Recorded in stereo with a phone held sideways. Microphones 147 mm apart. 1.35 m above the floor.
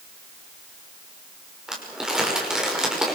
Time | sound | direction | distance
1.7 | crumpling | 5° right (ahead or behind) | 5.5 m